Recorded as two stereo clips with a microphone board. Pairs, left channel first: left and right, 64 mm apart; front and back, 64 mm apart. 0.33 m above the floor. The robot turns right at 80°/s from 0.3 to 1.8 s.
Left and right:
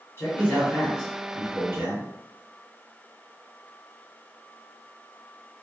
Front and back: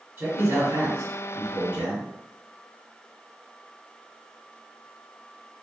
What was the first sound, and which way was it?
A man speaking, 130° left.